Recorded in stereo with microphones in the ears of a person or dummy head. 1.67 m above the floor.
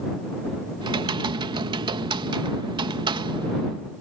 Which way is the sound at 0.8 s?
25° right (ahead or behind).